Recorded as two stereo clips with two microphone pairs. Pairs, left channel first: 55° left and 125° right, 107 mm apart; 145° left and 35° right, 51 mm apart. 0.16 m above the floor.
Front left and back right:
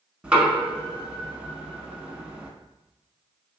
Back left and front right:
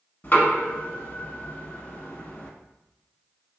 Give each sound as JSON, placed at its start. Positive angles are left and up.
{"t": 0.2, "sound": "knocking", "azimuth_deg": 165, "distance_m": 0.8}